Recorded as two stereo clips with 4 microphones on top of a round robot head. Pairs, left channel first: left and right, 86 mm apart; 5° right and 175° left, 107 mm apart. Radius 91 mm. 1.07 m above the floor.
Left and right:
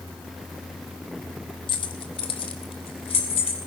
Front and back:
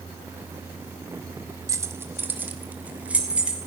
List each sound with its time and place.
1.7 s keys jangling: 115° left, 1.1 m; by 3.6 s 95° left, 3.5 m